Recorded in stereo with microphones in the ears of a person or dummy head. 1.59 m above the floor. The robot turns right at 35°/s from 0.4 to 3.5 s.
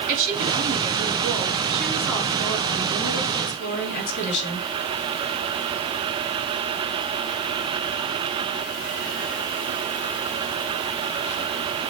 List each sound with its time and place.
0.1 s a woman speaking: 50° right, 3.5 m; by 4.7 s 60° left, 3.5 m